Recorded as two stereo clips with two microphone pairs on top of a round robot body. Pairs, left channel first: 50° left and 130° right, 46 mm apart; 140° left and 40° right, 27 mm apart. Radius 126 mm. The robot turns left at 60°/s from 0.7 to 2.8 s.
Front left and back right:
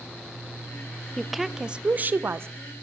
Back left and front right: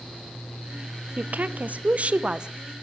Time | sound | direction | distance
1.2 | a woman speaking | 15° right | 0.5 m